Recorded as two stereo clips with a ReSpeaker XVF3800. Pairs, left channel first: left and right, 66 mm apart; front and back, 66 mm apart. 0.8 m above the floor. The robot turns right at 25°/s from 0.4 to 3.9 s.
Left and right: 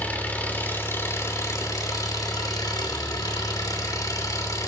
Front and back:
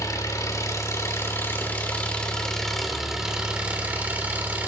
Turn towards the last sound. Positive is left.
turn(degrees=115)